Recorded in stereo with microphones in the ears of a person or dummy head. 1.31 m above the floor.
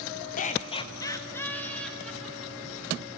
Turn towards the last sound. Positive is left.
turn(degrees=-5)  # may be behind; listen again after turning